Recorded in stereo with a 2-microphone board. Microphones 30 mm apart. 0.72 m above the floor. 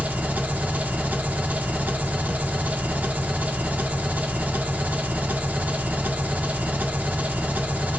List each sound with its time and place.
0.0 s an engine running: 65° right (ahead or behind), 0.8 m